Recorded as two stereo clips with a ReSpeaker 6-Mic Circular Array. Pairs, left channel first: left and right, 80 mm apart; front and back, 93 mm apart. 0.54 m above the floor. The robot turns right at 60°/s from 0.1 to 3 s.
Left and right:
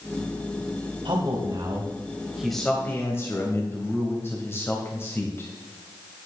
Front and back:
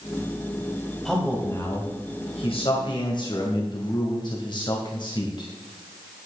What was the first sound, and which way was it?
A man speaking, 85° right.